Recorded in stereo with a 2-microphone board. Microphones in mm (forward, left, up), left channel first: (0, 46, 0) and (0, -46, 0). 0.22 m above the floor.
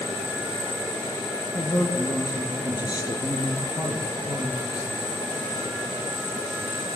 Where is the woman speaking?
45° left (ahead or behind), 6 m.